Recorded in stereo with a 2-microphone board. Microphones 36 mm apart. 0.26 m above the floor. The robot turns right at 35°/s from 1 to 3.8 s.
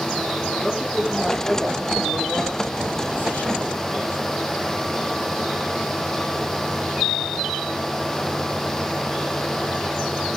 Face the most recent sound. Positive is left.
turn(degrees=85)